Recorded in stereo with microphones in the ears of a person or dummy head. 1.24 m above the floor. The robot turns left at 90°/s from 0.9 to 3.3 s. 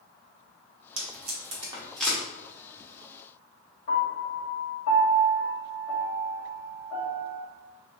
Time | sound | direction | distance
1.0 | tape being pulled | 70° right (ahead or behind) | 1.2 m
3.9 | a piano | 70° left (ahead or behind) | 1.9 m